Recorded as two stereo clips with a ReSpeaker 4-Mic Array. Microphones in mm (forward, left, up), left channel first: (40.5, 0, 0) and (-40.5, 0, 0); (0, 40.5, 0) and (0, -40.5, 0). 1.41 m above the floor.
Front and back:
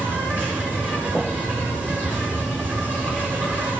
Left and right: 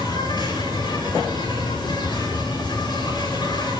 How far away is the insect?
About 8.5 m.